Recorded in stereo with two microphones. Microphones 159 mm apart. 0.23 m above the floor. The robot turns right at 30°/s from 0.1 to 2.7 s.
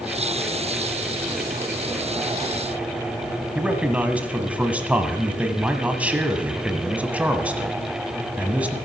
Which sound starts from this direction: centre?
A man speaking, at 3.5 s.